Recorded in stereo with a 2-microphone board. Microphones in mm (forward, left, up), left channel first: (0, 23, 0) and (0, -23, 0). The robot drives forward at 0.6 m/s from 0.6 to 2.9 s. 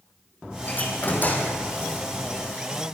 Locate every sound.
0.7 s a door slam: 40° left (ahead or behind), 6 m; by 1.6 s 45° left (ahead or behind), 5.5 m